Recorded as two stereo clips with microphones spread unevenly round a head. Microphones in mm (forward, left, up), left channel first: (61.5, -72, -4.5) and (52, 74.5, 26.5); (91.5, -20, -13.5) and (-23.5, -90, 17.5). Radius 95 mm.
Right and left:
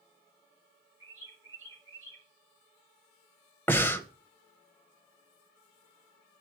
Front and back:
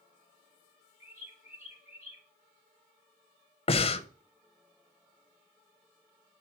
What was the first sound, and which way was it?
A bird, 150° left.